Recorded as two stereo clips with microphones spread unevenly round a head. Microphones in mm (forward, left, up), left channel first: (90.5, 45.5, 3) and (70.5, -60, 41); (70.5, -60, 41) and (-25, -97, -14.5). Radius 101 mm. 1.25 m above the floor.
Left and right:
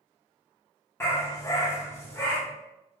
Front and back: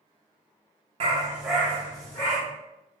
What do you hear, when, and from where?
1.0 s a dog barking: straight behind, 0.8 m; by 2.4 s 5° left, 1.8 m